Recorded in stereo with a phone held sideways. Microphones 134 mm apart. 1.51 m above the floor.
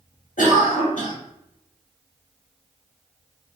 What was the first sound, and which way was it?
A cough, 80° left.